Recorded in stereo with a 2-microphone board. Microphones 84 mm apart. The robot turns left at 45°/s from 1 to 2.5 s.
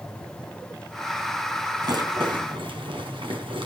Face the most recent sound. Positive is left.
turn(degrees=-75)  # may be behind; listen again after turning